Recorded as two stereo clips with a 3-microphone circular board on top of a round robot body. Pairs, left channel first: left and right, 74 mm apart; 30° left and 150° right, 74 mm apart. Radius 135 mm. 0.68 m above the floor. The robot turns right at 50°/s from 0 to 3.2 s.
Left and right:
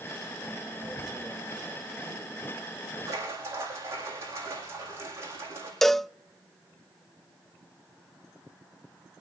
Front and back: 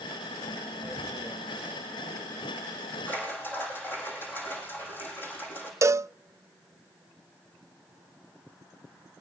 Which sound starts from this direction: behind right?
Tearing paper, at 0.8 s.